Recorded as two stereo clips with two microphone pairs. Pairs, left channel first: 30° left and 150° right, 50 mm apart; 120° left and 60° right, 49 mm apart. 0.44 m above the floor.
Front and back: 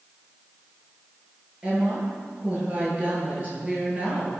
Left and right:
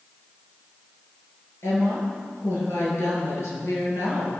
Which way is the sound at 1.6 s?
145° left.